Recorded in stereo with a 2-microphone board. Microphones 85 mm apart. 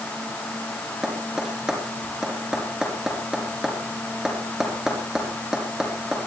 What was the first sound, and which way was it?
Tapping, 5° right (ahead or behind).